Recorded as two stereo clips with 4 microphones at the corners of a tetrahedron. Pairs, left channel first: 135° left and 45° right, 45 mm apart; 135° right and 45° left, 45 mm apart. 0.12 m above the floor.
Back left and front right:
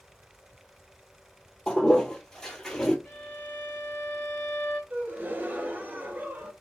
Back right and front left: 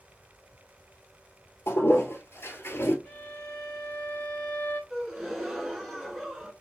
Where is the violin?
175° right, 2 m.